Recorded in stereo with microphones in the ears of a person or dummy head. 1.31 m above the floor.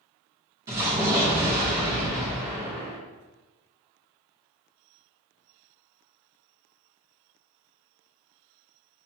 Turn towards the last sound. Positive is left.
turn(degrees=-15)  # may be behind; listen again after turning